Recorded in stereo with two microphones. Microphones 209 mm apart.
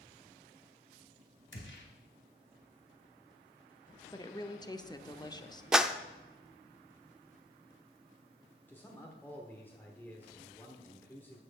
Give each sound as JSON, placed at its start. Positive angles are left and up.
{"t": 1.5, "sound": "a gunshot", "side_deg": 60, "distance_m": 2.5}
{"t": 4.1, "sound": "a woman speaking", "side_deg": 20, "distance_m": 0.7}
{"t": 5.7, "sound": "a clap", "side_deg": -5, "distance_m": 0.5}
{"t": 8.7, "sound": "a man speaking", "side_deg": 10, "distance_m": 1.2}